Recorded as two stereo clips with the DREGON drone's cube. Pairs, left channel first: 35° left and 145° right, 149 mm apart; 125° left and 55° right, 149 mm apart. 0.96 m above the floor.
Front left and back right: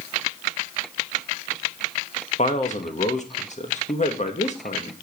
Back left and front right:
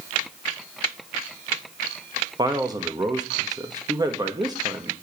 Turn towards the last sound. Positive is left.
turn(degrees=5)